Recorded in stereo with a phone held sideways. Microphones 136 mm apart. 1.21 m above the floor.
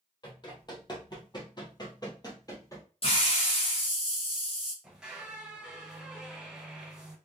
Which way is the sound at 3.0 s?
45° left (ahead or behind).